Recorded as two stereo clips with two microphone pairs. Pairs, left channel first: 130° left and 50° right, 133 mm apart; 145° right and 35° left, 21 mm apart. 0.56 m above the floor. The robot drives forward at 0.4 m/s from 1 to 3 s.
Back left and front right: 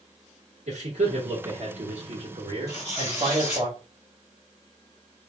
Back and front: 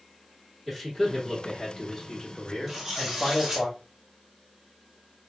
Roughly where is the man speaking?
Ahead right.